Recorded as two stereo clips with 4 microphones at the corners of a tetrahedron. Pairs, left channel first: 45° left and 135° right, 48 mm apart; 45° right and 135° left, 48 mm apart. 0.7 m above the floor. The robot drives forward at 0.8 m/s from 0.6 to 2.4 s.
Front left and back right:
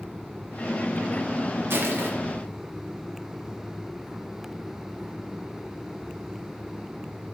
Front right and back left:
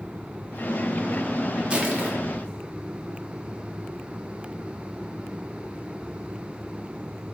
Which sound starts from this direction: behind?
Crushing, at 1.7 s.